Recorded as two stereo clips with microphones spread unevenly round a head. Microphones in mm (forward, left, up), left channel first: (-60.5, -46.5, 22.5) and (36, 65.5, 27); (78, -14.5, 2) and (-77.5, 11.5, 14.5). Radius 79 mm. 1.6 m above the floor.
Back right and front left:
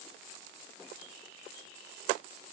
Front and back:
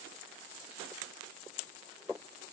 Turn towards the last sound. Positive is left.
No sound to turn to.